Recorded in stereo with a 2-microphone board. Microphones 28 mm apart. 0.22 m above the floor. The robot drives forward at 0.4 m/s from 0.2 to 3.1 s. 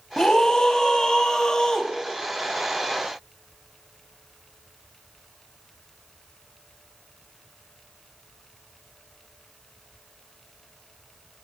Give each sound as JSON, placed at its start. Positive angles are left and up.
{"t": 0.2, "sound": "a scream", "side_deg": 30, "distance_m": 1.1}